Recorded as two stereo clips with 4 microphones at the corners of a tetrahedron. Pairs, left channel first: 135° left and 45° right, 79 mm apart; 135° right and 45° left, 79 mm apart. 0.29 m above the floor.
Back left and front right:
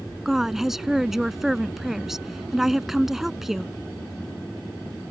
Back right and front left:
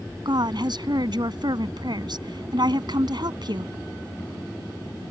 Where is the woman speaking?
40° left.